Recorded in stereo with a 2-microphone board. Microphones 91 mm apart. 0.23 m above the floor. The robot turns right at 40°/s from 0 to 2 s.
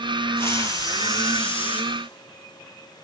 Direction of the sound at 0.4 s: 25° left.